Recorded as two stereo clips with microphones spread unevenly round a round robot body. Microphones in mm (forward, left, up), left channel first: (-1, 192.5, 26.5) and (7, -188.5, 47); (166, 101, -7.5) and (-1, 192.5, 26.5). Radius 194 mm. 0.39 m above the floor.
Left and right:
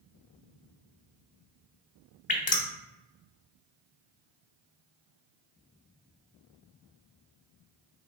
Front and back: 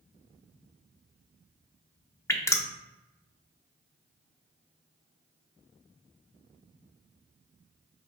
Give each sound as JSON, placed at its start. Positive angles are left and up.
{"t": 2.3, "sound": "dripping", "azimuth_deg": 30, "distance_m": 0.8}